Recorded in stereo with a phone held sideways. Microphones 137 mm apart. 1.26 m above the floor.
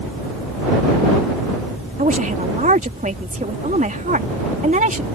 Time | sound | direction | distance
2.0 | a woman speaking | 70° right (ahead or behind) | ?